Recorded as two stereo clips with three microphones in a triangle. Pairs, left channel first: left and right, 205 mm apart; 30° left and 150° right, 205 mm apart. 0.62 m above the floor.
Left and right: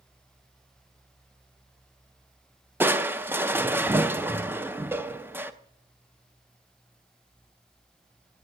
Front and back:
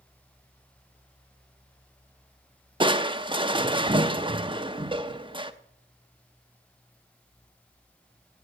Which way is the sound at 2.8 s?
155° right.